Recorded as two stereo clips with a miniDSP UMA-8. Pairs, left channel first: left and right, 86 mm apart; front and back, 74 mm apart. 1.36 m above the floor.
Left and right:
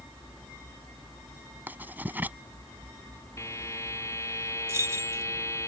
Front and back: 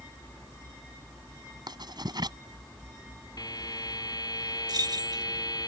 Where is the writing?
160° right.